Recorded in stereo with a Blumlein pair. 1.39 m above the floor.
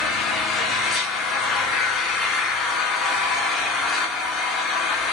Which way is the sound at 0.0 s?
20° left.